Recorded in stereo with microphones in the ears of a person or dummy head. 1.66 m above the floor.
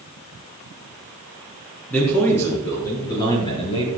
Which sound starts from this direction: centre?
A man speaking, at 1.9 s.